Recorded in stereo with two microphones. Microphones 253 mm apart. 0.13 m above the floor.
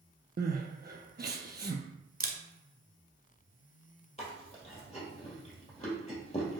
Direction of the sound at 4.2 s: 25° left (ahead or behind).